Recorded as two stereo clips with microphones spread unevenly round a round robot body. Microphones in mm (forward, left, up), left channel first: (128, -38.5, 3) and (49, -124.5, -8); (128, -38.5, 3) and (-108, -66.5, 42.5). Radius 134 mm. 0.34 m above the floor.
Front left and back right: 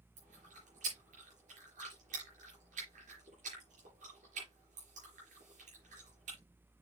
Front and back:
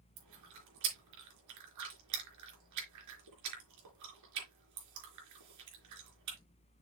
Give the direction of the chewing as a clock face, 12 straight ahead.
6 o'clock.